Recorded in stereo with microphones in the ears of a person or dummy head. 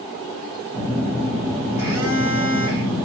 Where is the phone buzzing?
20° right (ahead or behind), 0.6 m.